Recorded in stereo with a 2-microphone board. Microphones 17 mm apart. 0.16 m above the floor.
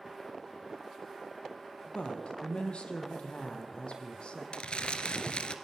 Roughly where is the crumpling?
Left.